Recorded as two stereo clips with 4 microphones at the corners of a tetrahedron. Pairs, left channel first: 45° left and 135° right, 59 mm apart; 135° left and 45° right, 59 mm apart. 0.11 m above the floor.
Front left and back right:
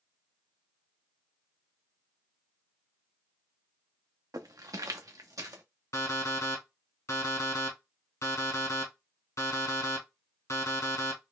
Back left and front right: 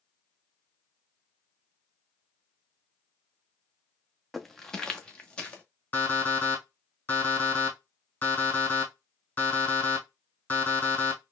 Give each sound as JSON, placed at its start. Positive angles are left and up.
{"t": 4.3, "sound": "footsteps", "azimuth_deg": -135, "distance_m": 0.6}
{"t": 5.9, "sound": "an alarm clock", "azimuth_deg": 75, "distance_m": 1.8}